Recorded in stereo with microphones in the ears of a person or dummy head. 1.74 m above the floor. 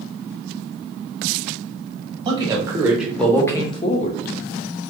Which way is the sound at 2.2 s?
25° right (ahead or behind).